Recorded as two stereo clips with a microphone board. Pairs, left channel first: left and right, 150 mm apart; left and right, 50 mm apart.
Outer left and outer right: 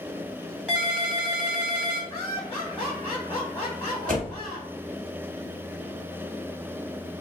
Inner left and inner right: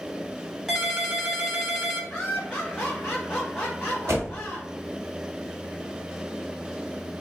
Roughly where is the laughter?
Left.